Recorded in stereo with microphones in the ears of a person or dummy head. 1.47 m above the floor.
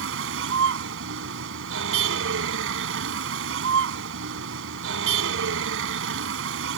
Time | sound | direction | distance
0.0 | a vehicle | 80° right | ?